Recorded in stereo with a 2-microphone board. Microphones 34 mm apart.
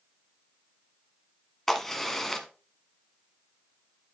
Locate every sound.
1.7 s a crack: 10° left (ahead or behind), 1.1 m